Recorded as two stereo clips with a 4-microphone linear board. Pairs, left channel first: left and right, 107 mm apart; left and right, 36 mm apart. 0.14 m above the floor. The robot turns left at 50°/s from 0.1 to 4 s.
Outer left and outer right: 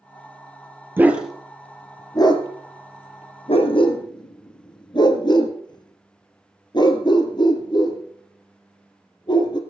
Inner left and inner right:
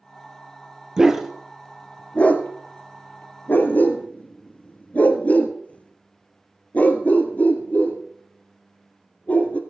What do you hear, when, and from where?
1.0 s a dog barking: 20° right (ahead or behind), 1.3 m; by 9.6 s 45° left (ahead or behind), 1.3 m